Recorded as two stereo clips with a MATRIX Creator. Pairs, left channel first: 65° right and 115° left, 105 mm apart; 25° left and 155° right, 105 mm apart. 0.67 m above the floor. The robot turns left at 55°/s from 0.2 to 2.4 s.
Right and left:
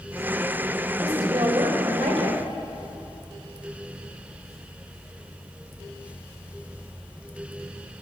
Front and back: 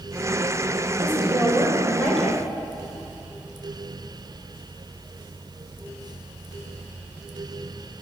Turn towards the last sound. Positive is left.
turn(degrees=95)